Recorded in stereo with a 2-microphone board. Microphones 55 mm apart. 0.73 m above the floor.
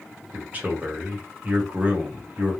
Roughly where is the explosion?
No explosion in this recording.